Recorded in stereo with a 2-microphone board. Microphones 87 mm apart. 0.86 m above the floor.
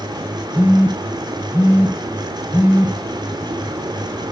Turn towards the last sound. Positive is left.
turn(degrees=-20)  # may be behind; listen again after turning